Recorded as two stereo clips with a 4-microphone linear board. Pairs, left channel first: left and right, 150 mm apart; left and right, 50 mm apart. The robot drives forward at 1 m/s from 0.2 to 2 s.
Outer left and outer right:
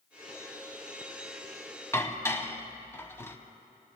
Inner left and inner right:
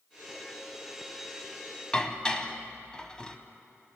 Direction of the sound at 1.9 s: 20° left (ahead or behind).